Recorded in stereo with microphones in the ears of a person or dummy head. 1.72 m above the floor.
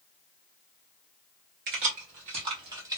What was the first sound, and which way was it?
Keys jangling, 45° right (ahead or behind).